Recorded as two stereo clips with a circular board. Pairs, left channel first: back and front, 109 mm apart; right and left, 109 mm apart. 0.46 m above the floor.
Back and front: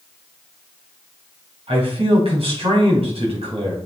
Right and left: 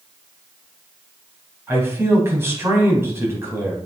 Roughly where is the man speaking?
Ahead left.